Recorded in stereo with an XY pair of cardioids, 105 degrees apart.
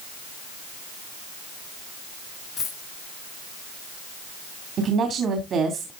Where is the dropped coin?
55° left, 3 m.